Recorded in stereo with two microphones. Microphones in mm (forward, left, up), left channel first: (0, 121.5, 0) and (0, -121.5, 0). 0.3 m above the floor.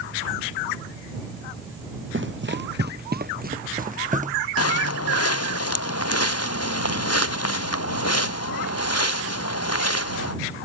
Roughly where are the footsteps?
Left.